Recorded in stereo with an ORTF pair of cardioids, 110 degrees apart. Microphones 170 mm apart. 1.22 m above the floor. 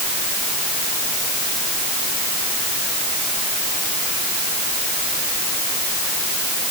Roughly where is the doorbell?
No doorbell in this recording.